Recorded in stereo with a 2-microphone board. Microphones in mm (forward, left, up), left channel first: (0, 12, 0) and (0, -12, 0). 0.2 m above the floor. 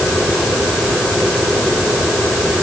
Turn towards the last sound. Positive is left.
No sound to turn to.